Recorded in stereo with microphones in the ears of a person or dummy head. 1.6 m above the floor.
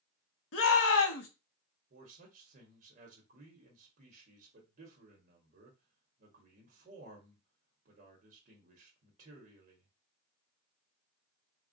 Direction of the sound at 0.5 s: 80° left.